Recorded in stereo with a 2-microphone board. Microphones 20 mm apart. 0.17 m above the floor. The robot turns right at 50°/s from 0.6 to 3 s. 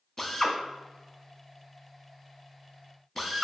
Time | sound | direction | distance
0.2 | a drill | 15° left (ahead or behind) | 0.5 m